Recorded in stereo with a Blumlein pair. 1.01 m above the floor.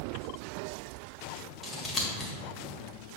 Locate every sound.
1.6 s scissors: 15° left, 1.9 m